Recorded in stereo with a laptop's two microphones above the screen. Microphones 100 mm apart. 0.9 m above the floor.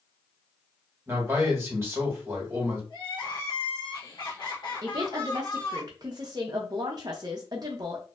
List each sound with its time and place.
1.1 s a man speaking: 25° right (ahead or behind), 1.2 m
2.9 s crying: 50° left (ahead or behind), 1.0 m
4.8 s a woman speaking: 40° right (ahead or behind), 0.5 m